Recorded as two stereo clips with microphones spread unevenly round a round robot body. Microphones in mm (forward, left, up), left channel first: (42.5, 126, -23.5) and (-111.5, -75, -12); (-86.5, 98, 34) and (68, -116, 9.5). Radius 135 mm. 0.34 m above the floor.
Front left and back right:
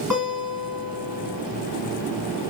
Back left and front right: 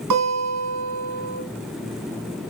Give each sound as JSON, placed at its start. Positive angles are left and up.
{"t": 0.1, "sound": "a guitar", "azimuth_deg": -45, "distance_m": 2.5}